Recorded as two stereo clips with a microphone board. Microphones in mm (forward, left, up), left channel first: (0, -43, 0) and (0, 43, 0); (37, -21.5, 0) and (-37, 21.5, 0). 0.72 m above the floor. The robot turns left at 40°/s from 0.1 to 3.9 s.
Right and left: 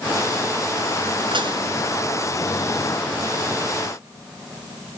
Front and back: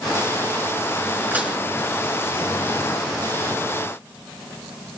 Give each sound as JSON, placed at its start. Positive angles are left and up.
{"t": 1.3, "sound": "dishes clattering", "azimuth_deg": 80, "distance_m": 5.5}